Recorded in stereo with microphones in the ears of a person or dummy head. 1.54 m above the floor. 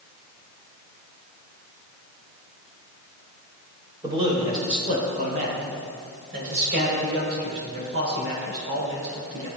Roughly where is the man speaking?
Right.